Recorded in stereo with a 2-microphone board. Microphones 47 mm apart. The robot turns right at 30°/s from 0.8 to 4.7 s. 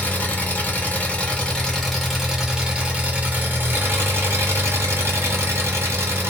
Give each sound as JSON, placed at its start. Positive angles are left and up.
{"t": 0.0, "sound": "an engine running", "azimuth_deg": 140, "distance_m": 0.9}